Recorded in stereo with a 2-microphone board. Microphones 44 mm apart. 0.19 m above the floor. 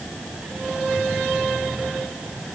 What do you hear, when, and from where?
Only background noise.